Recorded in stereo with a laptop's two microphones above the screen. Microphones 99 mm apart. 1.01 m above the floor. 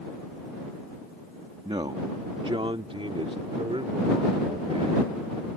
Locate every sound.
1.6 s a man speaking: 70° right (ahead or behind); by 5.5 s 85° right